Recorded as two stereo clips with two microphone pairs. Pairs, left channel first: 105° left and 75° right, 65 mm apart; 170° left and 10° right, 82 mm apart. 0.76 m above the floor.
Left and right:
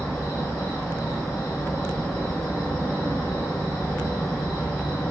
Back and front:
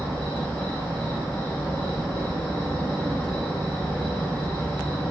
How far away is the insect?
About 1.1 m.